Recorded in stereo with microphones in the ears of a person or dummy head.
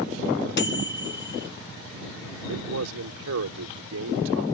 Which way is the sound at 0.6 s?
50° left (ahead or behind).